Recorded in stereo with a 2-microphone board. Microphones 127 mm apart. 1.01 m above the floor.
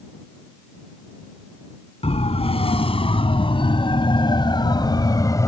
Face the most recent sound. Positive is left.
turn(degrees=25)  # may be behind; listen again after turning